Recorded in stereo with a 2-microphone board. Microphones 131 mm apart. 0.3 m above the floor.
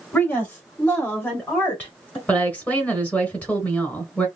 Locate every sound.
0.1 s a woman speaking: 10° left (ahead or behind), 1.1 m
2.3 s a woman speaking: 10° left (ahead or behind), 1.2 m